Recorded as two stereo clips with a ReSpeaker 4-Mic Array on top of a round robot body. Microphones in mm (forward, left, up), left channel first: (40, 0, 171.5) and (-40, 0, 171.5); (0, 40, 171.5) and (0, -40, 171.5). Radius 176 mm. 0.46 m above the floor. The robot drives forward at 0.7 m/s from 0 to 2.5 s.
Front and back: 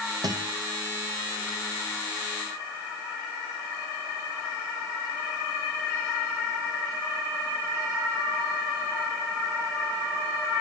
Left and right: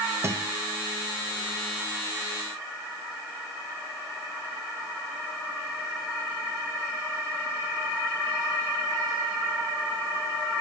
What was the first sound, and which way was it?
A guitar, 145° right.